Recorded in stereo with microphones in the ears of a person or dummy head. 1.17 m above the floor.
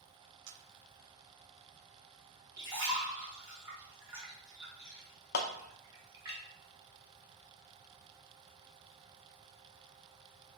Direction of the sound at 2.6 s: 20° right (ahead or behind).